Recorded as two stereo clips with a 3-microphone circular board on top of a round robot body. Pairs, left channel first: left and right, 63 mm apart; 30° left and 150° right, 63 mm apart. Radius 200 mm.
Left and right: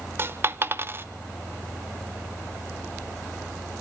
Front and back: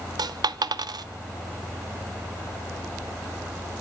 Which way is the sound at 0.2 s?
145° right.